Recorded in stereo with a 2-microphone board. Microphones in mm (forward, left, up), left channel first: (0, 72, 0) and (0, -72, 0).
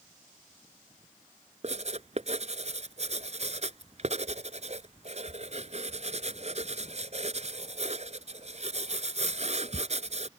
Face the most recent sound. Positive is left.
turn(degrees=-50)  # may be behind; listen again after turning